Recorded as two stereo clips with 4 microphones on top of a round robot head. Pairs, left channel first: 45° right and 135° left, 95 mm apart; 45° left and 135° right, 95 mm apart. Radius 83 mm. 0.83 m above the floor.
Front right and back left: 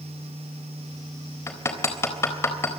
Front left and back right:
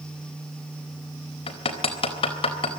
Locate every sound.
1.5 s hammering: 20° left, 4 m